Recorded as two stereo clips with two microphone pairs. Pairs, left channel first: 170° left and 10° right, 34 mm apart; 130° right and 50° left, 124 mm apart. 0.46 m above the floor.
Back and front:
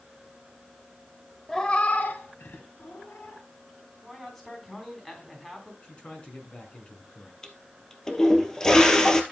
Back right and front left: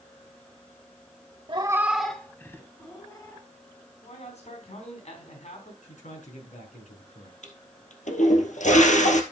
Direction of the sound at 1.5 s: 95° left.